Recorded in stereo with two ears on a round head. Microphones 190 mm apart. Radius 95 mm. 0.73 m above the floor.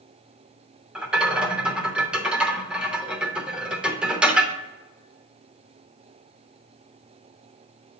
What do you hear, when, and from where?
0.9 s a rattle: 5° right (ahead or behind), 0.6 m